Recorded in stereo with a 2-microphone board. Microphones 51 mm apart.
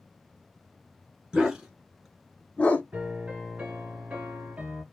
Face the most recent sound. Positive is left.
turn(degrees=-30)  # may be behind; listen again after turning